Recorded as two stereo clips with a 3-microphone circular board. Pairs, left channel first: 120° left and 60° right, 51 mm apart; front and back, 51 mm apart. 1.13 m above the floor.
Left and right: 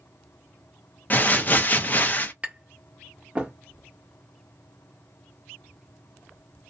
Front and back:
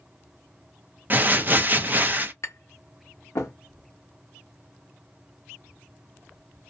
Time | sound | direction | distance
1.1 | crumpling | 155° left | 0.5 m
2.4 | tapping | 5° left | 0.8 m